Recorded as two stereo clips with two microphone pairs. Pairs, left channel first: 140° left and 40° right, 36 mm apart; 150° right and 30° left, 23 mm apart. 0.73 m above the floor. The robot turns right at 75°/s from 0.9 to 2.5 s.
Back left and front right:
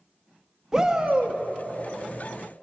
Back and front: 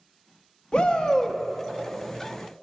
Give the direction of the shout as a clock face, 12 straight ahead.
4 o'clock.